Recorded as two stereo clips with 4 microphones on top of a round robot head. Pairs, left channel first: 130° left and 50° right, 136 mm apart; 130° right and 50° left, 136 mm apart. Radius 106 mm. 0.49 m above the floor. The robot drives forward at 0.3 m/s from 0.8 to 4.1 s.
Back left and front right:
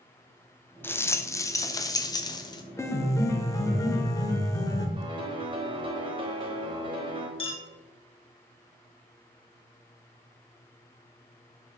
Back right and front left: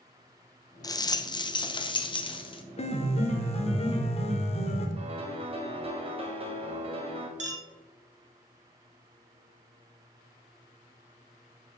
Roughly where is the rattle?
Behind.